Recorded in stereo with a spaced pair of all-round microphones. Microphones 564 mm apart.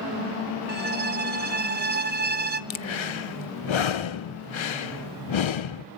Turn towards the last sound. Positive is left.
turn(degrees=55)  # may be behind; listen again after turning